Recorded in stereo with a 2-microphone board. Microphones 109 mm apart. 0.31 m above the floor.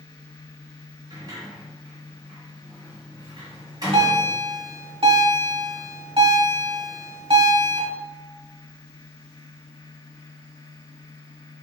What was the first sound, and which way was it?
A sliding door, 40° right (ahead or behind).